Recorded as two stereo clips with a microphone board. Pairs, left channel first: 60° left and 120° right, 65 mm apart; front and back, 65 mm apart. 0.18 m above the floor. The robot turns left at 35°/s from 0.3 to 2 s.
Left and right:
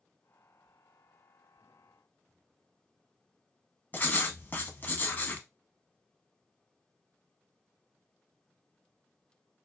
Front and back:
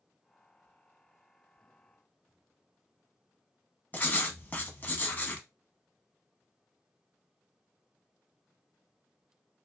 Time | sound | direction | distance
3.9 | writing | 30° left | 0.5 m